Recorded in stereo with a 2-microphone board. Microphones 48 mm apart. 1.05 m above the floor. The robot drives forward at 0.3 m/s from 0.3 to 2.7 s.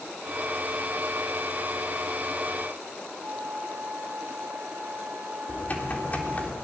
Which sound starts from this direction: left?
Typing on a keyboard, at 5.5 s.